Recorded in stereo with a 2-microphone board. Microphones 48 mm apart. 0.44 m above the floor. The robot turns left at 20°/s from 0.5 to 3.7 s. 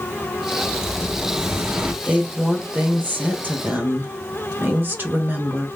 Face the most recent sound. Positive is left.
turn(degrees=-75)